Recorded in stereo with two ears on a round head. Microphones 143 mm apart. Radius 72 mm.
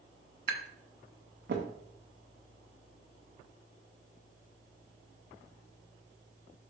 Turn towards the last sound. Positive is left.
turn(degrees=-65)  # may be behind; listen again after turning